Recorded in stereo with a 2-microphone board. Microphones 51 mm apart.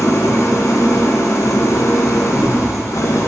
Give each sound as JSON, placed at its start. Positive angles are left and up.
{"t": 0.0, "sound": "an engine running", "side_deg": 70, "distance_m": 0.7}